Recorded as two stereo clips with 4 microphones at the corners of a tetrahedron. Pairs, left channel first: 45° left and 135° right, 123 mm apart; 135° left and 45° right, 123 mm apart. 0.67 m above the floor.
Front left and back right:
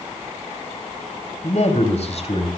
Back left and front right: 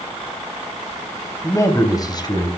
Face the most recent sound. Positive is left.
turn(degrees=85)